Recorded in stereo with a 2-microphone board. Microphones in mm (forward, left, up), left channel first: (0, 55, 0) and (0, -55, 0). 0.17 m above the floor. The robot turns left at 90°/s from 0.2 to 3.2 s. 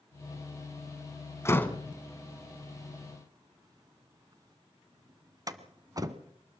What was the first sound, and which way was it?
A door slam, 25° left (ahead or behind).